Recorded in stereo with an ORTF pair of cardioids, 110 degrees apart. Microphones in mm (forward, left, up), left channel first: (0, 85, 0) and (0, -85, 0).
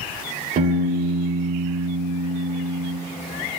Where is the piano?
50° right, 3.5 m.